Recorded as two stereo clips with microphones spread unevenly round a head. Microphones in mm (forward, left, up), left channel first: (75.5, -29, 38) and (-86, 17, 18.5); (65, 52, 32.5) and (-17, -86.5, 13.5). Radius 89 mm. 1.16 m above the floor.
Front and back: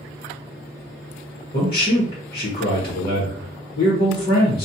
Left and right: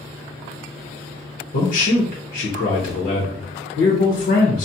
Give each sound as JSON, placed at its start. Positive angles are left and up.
{"t": 1.5, "sound": "a man speaking", "azimuth_deg": 45, "distance_m": 0.9}